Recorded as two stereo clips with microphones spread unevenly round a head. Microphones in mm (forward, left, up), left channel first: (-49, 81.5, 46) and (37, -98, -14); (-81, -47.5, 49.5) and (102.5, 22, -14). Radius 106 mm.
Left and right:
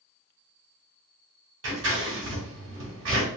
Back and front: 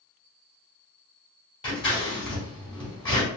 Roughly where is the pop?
I don't hear a pop.